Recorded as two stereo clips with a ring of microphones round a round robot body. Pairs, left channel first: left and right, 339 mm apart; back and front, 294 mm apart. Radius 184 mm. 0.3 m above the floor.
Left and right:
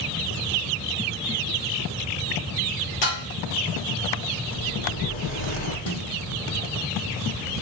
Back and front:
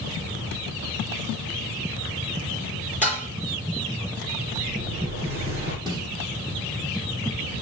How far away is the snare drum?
About 7.5 m.